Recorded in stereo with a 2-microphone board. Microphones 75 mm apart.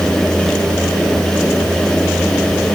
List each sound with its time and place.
Only background noise.